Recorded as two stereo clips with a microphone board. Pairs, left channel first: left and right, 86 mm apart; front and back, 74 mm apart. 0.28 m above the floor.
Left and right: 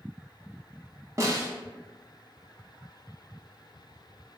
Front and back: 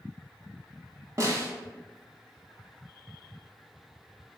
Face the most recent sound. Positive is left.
turn(degrees=-140)